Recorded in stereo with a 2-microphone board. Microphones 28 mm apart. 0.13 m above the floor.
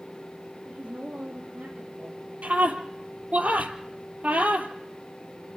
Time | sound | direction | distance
0.7 | a woman speaking | 70° right (ahead or behind) | 4 m
2.4 | a scream | 65° right (ahead or behind) | 3.5 m